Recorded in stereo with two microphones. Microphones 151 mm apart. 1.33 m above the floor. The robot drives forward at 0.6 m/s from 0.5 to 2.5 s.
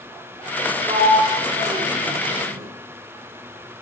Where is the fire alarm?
No fire alarm in this recording.